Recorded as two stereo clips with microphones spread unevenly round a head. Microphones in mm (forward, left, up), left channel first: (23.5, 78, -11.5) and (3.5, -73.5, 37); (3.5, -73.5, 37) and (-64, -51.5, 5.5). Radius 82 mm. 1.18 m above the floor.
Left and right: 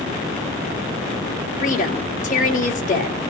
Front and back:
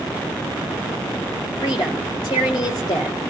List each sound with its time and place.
1.6 s a woman speaking: 45° left, 3 m